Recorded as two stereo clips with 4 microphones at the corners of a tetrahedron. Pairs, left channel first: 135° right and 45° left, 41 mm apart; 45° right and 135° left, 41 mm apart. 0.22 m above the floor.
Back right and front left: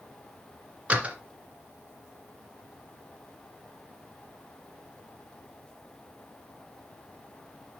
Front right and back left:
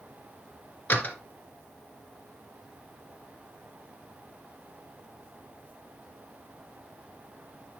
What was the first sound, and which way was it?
A door slam, 10° right.